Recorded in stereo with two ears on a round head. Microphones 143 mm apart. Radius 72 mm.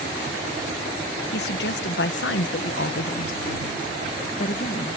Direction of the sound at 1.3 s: 75° left (ahead or behind).